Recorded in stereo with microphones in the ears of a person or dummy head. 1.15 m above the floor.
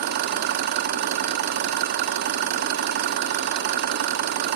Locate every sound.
0.0 s an engine running: 55° right (ahead or behind), 1.0 m